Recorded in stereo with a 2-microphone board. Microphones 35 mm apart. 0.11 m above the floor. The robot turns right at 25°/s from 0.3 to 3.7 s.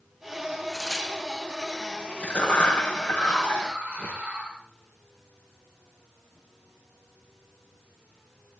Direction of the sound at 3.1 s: 50° right (ahead or behind).